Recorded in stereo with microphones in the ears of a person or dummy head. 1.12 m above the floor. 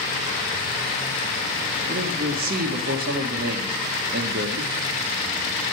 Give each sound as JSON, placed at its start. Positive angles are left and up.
{"t": 1.9, "sound": "a man speaking", "side_deg": -50, "distance_m": 1.0}